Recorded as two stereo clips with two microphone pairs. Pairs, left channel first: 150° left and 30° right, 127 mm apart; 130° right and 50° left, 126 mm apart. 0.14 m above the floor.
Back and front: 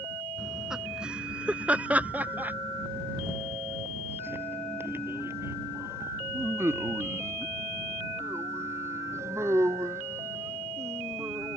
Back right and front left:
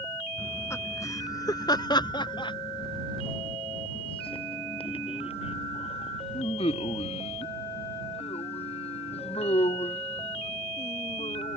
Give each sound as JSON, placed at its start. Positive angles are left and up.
{"t": 0.4, "sound": "laughter", "azimuth_deg": -110}